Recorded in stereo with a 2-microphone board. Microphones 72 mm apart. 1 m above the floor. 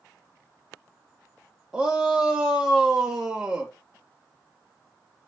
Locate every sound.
1.7 s a shout: 15° right (ahead or behind), 0.8 m